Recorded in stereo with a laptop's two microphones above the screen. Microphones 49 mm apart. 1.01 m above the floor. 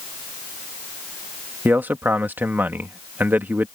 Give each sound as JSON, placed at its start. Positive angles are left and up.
{"t": 1.6, "sound": "a man speaking", "side_deg": -40}